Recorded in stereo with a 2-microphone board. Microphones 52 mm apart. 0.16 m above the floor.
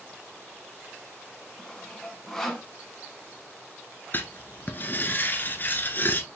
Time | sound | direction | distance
1.6 | sawing | 5° left (ahead or behind) | 1.3 m
4.1 | writing | 40° left (ahead or behind) | 0.9 m